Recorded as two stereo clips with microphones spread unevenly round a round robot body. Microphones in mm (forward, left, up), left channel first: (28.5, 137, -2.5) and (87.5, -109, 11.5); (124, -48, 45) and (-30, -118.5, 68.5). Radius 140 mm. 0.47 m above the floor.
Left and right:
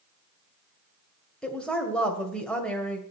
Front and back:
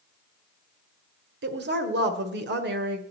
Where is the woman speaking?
170° right, 1.7 m.